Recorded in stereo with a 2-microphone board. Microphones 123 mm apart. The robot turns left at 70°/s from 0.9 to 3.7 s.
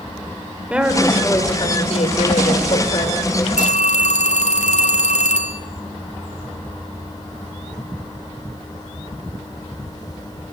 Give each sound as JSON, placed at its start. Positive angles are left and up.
{"t": 0.7, "sound": "a woman speaking", "azimuth_deg": -170, "distance_m": 3.5}
{"t": 3.6, "sound": "a phone ringing", "side_deg": 85, "distance_m": 2.0}